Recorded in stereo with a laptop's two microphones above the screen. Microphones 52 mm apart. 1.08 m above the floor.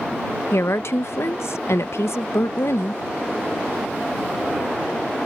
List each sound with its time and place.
0.5 s a woman speaking: 70° left (ahead or behind)